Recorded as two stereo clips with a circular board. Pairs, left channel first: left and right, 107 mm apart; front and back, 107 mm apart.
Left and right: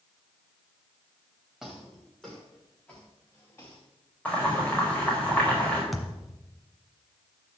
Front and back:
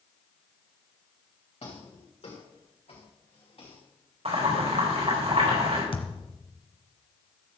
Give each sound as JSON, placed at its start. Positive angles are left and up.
{"t": 1.6, "sound": "footsteps", "azimuth_deg": -5, "distance_m": 4.0}
{"t": 4.2, "sound": "boiling", "azimuth_deg": 165, "distance_m": 5.0}
{"t": 5.9, "sound": "a thud", "azimuth_deg": 0, "distance_m": 1.6}